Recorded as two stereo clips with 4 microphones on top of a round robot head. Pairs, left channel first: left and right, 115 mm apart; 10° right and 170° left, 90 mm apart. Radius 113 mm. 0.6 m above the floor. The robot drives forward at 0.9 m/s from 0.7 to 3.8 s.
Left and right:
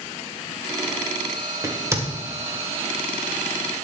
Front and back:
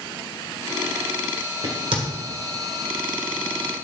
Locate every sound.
1.6 s a crack: 155° right, 2 m